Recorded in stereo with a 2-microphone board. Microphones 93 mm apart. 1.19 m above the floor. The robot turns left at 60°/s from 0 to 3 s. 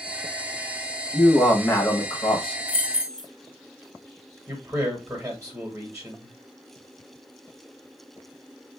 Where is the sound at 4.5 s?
20° right (ahead or behind), 1.6 m.